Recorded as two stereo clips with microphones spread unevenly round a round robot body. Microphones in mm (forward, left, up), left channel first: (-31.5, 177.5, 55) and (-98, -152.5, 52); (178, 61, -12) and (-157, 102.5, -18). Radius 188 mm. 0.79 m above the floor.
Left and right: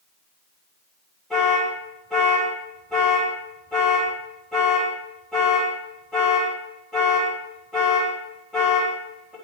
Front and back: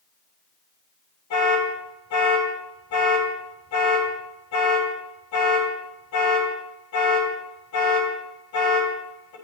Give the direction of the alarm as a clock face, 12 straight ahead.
12 o'clock.